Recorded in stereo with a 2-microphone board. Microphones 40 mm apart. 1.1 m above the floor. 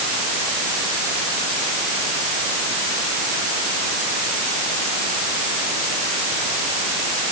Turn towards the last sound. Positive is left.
No sound to turn to.